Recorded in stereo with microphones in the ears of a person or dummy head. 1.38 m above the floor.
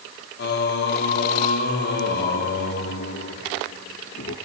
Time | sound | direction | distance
0.4 | singing | 60° left (ahead or behind) | 1.9 m